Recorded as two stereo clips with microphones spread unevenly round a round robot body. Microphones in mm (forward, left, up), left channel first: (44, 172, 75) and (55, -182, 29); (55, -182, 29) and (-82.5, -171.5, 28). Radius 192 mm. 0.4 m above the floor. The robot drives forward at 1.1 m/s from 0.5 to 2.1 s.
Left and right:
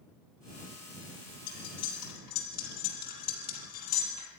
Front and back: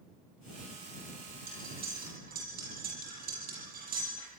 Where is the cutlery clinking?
140° left, 6.5 m; by 4.3 s 145° left, 7 m.